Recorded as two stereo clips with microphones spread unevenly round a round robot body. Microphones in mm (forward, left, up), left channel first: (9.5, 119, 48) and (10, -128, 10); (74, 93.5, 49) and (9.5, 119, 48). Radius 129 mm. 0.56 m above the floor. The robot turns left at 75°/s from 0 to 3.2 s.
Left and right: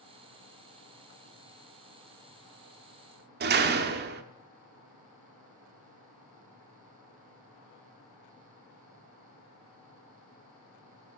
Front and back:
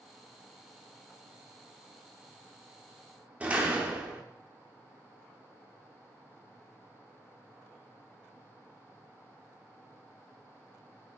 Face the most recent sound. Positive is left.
turn(degrees=-130)